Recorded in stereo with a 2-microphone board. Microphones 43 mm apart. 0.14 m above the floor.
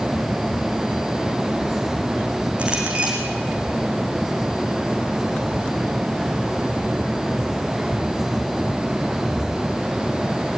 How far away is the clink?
About 5.5 m.